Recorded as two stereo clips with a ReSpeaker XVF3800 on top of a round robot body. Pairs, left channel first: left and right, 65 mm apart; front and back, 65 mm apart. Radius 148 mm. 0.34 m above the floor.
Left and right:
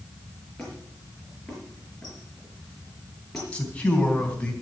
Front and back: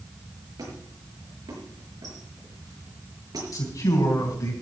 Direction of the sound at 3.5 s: 20° left.